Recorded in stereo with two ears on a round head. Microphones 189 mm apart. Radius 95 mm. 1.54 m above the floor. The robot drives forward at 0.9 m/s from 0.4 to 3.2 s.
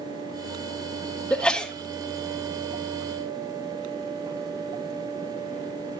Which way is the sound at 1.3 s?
5° left (ahead or behind).